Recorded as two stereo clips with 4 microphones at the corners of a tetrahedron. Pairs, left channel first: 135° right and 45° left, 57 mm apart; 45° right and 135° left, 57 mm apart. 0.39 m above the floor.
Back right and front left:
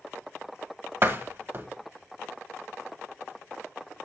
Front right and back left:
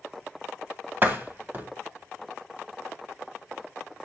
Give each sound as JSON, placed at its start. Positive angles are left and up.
{"t": 1.0, "sound": "a door slam", "azimuth_deg": 85, "distance_m": 1.4}